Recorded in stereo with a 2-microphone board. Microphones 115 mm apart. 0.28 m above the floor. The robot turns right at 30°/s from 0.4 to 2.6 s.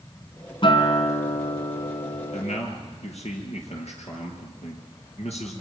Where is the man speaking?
70° left (ahead or behind), 6 m; by 5.6 s 65° left (ahead or behind), 6 m.